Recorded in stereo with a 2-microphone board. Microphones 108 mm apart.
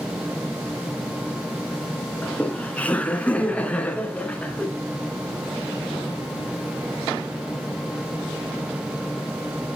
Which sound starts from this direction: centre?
Laughter, at 2.2 s.